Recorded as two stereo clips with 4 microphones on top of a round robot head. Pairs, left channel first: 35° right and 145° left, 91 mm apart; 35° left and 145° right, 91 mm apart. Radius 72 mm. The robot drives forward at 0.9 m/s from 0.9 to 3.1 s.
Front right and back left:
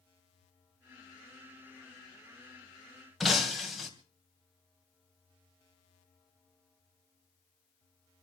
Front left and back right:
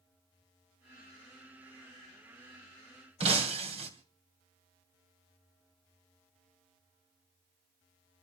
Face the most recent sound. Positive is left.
turn(degrees=-130)